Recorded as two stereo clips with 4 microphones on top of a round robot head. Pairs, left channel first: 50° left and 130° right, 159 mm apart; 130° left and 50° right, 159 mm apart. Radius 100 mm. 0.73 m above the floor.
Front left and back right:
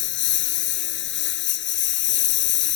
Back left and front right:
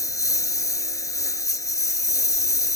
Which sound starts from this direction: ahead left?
A lawn mower, at 0.0 s.